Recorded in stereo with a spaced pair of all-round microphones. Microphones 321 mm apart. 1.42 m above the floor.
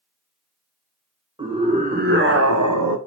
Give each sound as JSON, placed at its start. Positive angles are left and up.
{"t": 1.4, "sound": "a scream", "side_deg": -15, "distance_m": 1.4}